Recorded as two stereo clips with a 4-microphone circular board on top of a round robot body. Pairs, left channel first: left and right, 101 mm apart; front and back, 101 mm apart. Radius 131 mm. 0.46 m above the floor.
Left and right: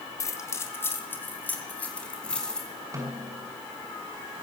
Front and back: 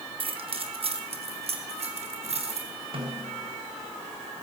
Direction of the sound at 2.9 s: 150° right.